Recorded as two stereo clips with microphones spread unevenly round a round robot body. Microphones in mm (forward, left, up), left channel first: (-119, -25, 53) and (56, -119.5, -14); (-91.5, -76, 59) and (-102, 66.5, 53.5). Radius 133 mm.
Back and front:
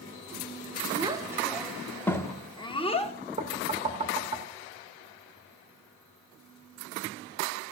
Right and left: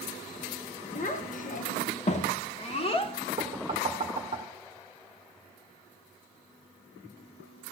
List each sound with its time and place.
0.9 s a child speaking: 75° right, 1.0 m; by 3.1 s 140° right, 1.4 m
3.4 s knocking: 30° left, 1.0 m